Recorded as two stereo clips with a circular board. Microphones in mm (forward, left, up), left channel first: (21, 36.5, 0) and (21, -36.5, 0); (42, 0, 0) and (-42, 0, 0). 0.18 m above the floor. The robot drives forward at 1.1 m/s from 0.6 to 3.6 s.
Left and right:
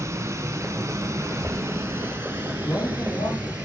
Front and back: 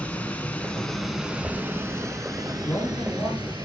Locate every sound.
0.0 s running water: 70° right, 1.7 m; by 3.6 s 160° right, 3.5 m
1.2 s a child speaking: 65° left, 0.6 m; by 2.5 s 170° left, 1.4 m
2.6 s a man speaking: 65° left, 6.5 m; by 3.5 s 70° left, 6 m